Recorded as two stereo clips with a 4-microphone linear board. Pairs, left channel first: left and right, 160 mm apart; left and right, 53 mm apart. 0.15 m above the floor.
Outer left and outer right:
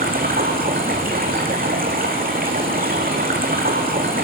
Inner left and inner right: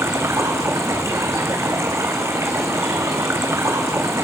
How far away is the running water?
About 1.9 m.